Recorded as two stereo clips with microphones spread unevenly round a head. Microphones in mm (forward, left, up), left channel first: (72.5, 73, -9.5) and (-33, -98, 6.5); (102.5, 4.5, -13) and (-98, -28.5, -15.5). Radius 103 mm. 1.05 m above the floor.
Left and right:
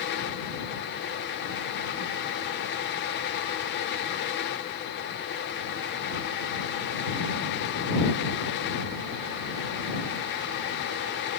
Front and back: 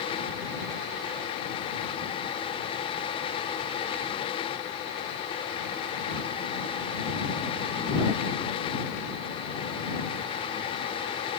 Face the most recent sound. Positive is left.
No sound to turn to.